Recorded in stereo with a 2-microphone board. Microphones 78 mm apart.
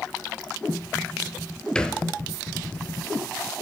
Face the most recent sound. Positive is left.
turn(degrees=10)  # may be behind; listen again after turning